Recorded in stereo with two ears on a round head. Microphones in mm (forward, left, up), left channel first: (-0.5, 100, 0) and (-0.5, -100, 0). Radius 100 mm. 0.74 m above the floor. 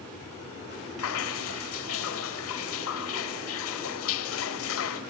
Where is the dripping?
65° left (ahead or behind), 1.3 m.